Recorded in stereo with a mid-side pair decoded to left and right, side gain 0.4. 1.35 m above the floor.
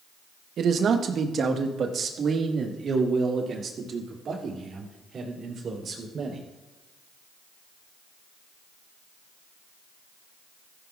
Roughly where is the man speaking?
Ahead right.